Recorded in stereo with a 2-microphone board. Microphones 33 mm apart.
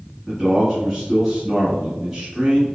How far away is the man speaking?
About 1.6 m.